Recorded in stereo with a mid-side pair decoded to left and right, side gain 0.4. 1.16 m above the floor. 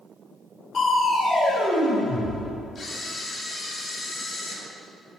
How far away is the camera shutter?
About 2 m.